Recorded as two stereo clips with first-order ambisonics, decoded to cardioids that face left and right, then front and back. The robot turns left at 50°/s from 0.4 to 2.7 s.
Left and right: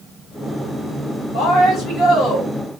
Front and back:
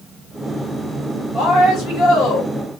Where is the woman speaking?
55° left, 1.8 m; by 2.5 s straight ahead, 1.8 m.